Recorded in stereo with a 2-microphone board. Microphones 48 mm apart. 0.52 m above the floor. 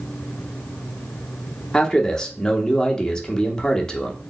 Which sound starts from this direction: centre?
A man speaking, at 1.7 s.